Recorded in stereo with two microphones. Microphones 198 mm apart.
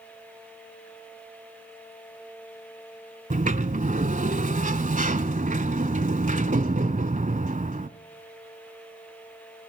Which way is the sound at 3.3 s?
40° right (ahead or behind).